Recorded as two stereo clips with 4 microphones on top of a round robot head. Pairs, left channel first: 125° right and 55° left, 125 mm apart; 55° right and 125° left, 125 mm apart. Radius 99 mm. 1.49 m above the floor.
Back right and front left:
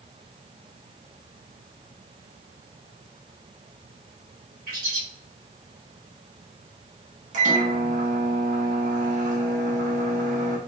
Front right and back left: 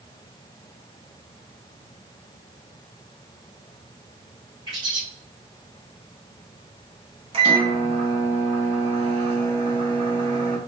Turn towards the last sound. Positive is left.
turn(degrees=80)